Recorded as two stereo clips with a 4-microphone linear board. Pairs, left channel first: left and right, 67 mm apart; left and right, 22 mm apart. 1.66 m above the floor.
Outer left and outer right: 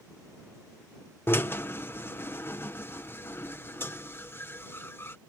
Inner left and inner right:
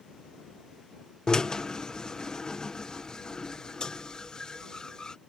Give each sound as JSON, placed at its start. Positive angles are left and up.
{"t": 1.3, "sound": "a drill", "side_deg": 35}